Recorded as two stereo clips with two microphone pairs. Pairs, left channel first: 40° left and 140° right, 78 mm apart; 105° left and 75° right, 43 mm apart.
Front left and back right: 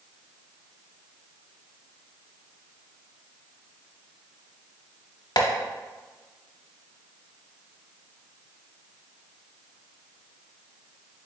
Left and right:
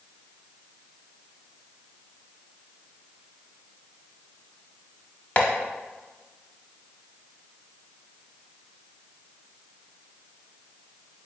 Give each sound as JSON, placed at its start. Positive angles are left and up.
{"t": 5.4, "sound": "tapping", "azimuth_deg": 55, "distance_m": 0.7}